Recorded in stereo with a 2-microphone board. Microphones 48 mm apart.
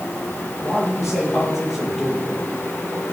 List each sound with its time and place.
0.6 s a man speaking: 5° right (ahead or behind), 7 m